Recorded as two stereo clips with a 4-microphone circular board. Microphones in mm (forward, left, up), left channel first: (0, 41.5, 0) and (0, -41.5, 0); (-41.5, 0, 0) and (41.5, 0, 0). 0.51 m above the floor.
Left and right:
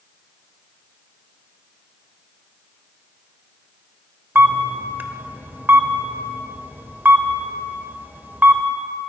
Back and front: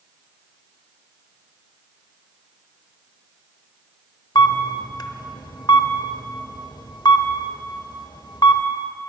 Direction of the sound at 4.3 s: 155° right.